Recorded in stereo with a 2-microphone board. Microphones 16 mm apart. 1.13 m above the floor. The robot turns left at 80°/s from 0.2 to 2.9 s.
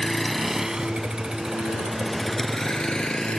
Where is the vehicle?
30° left (ahead or behind); by 3.4 s 80° left.